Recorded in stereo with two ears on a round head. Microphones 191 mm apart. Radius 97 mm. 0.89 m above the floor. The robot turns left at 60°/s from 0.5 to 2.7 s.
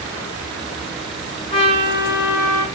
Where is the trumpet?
160° left, 7 m; by 2.6 s 95° left, 7 m.